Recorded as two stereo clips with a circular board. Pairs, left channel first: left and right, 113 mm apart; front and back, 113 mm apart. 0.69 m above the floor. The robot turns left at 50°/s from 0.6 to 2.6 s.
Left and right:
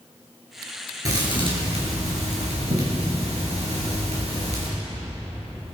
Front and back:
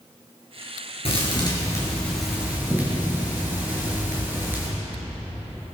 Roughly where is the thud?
Ahead right.